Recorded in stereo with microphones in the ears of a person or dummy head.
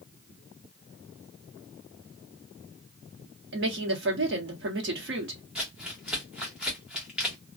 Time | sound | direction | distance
3.5 | a woman speaking | 60° right (ahead or behind) | 1.0 m
5.5 | crumpling | 5° right (ahead or behind) | 1.3 m